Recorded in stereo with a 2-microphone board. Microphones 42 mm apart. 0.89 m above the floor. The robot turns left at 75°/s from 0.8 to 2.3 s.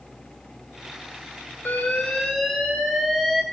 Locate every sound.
1.6 s an alarm: 50° left, 3.5 m; by 3.4 s straight ahead, 3.5 m